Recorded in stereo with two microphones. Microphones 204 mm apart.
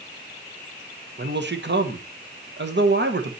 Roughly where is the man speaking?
Right.